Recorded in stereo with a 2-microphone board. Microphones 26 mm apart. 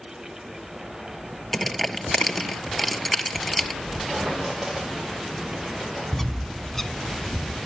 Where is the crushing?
10° left (ahead or behind), 1.6 m.